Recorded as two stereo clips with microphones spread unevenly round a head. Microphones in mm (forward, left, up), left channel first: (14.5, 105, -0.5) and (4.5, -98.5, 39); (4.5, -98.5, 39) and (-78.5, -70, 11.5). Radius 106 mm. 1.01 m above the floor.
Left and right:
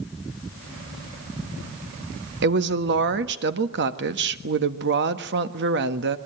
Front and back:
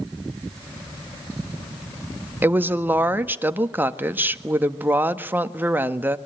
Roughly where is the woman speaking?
Behind right.